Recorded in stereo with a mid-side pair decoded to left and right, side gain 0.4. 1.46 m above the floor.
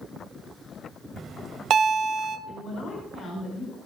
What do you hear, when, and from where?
1.2 s a bell: 65° right, 1.8 m
2.5 s a woman speaking: 65° left, 5.5 m